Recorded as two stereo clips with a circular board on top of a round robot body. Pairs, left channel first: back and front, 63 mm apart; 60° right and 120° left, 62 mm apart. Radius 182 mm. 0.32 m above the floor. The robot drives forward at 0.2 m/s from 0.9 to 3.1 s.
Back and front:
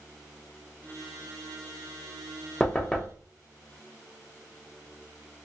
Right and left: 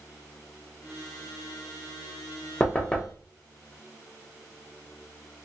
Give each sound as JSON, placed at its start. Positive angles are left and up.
{"t": 2.6, "sound": "knocking", "azimuth_deg": -110, "distance_m": 0.9}